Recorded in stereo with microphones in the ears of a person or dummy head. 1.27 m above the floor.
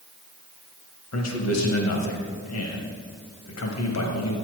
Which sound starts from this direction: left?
A man speaking, at 1.1 s.